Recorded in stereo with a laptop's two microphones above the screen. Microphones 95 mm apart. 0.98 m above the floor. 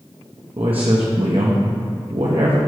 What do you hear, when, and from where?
0.6 s a man speaking: 65° right (ahead or behind), 1.0 m